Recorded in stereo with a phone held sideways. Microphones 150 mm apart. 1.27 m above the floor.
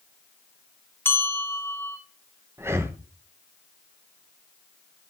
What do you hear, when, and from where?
1.1 s a bell: 15° left (ahead or behind), 2 m
2.6 s breathing: 15° right (ahead or behind), 1.1 m